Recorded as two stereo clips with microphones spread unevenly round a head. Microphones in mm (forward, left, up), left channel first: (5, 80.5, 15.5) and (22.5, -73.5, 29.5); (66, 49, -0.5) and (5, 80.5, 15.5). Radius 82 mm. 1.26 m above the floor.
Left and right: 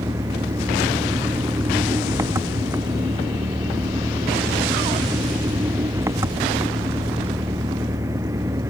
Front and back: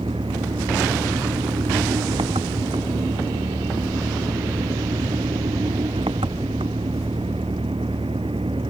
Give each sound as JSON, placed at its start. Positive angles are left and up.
{"t": 0.0, "sound": "an engine running", "azimuth_deg": -155}